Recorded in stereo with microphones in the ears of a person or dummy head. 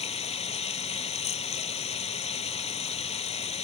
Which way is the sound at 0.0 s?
35° left (ahead or behind).